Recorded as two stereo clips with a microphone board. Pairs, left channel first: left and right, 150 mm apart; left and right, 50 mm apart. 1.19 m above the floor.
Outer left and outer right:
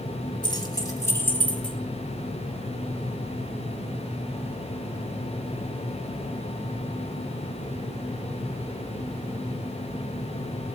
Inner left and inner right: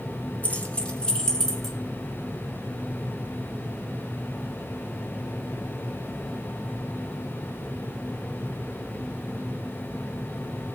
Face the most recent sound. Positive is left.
turn(degrees=5)  # may be behind; listen again after turning